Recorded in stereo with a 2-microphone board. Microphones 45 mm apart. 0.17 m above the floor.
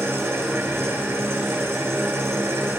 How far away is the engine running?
About 2.5 m.